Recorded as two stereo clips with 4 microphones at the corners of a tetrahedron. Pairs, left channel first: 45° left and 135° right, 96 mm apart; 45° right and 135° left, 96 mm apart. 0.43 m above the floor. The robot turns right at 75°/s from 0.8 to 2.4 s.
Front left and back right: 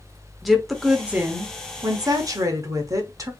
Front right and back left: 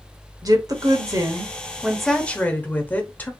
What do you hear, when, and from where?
0.4 s a woman speaking: 135° left, 1.1 m; by 3.3 s 105° right, 1.1 m